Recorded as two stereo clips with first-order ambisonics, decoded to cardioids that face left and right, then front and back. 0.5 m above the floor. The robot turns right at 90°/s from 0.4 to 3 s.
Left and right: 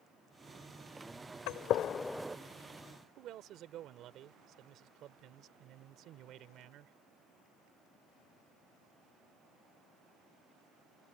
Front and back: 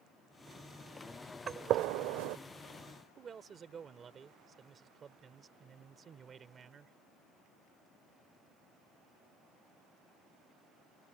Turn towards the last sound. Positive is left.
turn(degrees=-120)